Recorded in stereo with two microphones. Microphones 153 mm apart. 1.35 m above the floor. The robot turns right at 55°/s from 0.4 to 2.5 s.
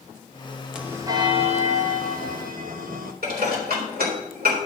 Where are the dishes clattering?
85° right, 3.5 m.